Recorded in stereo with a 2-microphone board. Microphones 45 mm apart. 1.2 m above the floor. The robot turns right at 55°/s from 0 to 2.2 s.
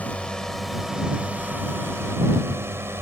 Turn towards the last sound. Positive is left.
turn(degrees=-100)